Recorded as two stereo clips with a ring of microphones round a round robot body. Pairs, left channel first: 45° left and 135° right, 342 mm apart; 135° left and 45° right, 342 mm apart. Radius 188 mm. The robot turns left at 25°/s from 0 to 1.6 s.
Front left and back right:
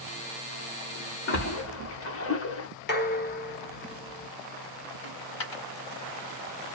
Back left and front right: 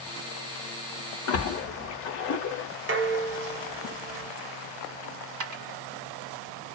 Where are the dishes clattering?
5° right, 1.0 m.